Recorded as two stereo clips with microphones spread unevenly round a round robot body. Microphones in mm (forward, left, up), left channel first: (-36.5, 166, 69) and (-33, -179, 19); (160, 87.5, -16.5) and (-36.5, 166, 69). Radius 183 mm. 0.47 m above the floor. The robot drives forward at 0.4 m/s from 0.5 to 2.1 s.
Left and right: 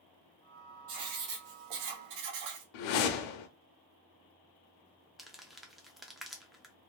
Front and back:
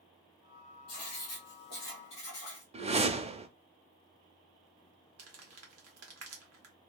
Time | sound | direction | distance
0.9 | writing | 55° right | 0.9 m
2.7 | a whoosh | 85° left | 0.6 m
5.2 | crumpling | 175° right | 0.5 m